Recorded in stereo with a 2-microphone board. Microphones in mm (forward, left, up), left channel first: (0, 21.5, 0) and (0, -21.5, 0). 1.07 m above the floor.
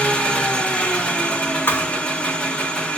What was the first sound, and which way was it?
An engine running, 30° left (ahead or behind).